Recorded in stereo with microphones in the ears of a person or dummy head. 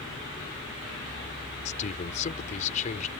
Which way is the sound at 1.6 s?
40° left (ahead or behind).